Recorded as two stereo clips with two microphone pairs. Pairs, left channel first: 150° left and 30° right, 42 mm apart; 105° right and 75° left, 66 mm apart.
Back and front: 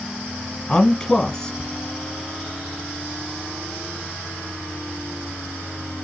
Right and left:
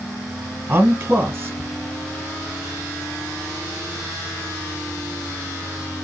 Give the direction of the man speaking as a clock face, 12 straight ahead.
9 o'clock.